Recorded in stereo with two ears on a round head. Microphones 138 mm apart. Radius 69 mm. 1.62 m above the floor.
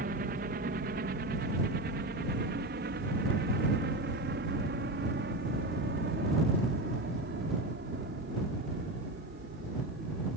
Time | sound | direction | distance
0.0 | a helicopter | 60° right (ahead or behind) | ?